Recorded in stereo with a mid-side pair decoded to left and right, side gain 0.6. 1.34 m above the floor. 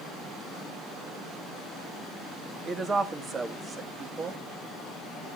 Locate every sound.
2.6 s a woman speaking: 30° right, 2 m